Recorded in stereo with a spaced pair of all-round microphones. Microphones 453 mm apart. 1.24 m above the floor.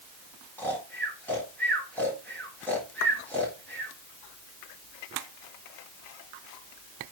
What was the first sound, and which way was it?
Snoring, 5° left (ahead or behind).